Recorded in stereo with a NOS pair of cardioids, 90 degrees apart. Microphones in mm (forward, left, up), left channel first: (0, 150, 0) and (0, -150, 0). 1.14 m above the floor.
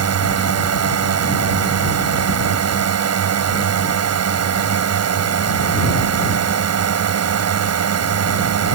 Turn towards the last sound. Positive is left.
turn(degrees=-55)